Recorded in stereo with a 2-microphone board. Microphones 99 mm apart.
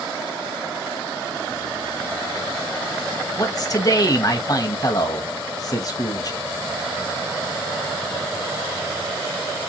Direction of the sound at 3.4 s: 40° left (ahead or behind).